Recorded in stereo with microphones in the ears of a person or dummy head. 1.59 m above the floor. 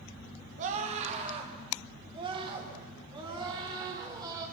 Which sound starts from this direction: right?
A scream, at 0.6 s.